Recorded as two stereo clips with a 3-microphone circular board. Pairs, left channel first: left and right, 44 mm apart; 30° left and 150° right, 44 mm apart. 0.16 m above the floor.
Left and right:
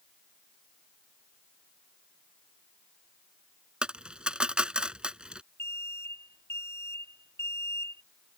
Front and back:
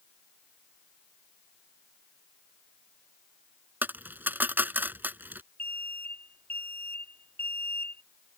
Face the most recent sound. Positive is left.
turn(degrees=80)